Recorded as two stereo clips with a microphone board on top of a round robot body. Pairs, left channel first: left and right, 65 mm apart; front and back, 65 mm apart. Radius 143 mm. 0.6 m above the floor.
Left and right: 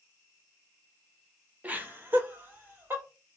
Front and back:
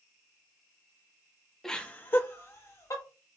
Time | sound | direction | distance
1.6 | laughter | 75° right | 0.9 m